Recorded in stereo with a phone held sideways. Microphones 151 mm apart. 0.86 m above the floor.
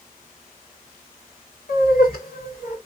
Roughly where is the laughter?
Left.